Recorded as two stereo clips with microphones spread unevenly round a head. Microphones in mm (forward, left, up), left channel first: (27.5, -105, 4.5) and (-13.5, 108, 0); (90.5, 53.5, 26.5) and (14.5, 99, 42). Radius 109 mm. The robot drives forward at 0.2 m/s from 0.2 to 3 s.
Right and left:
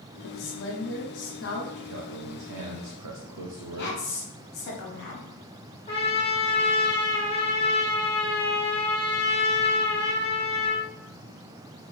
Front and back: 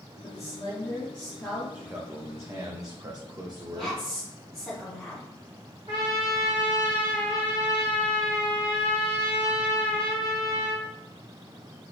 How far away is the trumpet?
About 0.9 m.